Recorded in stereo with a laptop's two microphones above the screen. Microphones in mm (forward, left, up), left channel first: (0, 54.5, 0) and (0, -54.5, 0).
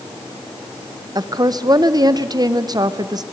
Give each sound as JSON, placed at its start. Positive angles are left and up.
{"t": 1.1, "sound": "a woman speaking", "side_deg": -40, "distance_m": 0.6}